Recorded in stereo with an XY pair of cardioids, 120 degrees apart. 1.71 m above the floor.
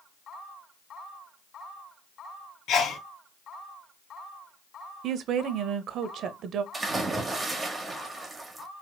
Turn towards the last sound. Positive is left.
turn(degrees=-25)